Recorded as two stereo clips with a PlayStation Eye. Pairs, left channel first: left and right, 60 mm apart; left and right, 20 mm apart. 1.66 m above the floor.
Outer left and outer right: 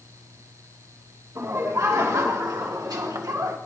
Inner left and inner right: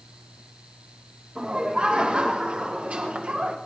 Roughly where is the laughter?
Right.